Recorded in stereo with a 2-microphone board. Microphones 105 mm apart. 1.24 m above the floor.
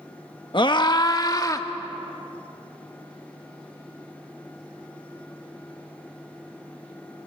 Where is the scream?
50° left (ahead or behind), 1.3 m; by 1.7 s 35° left (ahead or behind), 2 m.